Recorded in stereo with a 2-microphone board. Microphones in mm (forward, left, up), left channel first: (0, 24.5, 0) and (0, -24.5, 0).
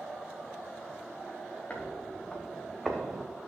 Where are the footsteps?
25° left (ahead or behind), 2.5 m; by 3.3 s 15° right (ahead or behind), 1.3 m.